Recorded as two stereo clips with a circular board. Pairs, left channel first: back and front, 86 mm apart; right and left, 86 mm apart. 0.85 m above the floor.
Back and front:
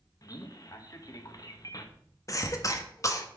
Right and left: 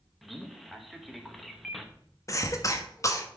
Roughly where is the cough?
Behind right.